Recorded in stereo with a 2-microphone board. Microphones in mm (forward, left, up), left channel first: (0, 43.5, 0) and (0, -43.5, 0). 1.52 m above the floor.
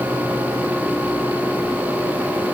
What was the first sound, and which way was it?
Only background noise.